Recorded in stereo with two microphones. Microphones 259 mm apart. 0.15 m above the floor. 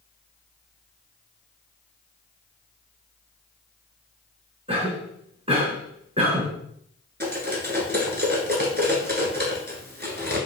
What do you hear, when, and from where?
4.7 s a cough: 25° right (ahead or behind), 1.8 m
7.2 s cutlery clinking: 40° right (ahead or behind), 1.2 m